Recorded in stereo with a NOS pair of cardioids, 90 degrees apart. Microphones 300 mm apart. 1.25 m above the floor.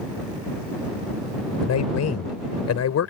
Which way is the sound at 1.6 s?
60° left.